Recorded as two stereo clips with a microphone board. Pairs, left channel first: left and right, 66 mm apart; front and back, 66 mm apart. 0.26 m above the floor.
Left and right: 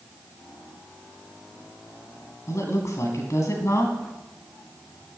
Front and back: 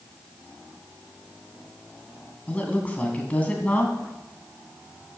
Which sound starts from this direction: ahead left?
A woman speaking, at 2.5 s.